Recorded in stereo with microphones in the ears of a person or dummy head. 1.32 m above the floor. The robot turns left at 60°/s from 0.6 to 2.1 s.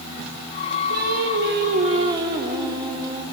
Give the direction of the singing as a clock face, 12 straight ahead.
3 o'clock.